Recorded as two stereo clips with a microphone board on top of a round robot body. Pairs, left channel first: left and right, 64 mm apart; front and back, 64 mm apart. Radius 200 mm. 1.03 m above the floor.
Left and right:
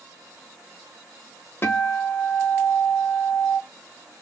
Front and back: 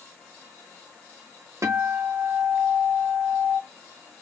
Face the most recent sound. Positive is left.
turn(degrees=140)